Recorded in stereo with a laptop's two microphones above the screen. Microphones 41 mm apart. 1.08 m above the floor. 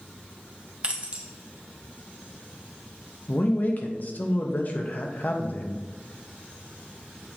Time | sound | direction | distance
0.8 | keys jangling | 30° right (ahead or behind) | 1.5 m
3.3 | a man speaking | 45° left (ahead or behind) | 1.1 m